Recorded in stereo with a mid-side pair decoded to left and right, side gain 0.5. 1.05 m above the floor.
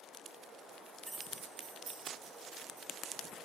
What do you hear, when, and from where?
1.1 s keys jangling: 15° right, 0.7 m; by 2.9 s 70° right, 3 m